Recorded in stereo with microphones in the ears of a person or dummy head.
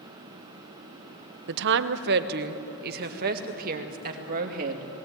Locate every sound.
1.5 s a woman speaking: 65° right (ahead or behind), 0.8 m; by 4.9 s 50° right (ahead or behind), 2.5 m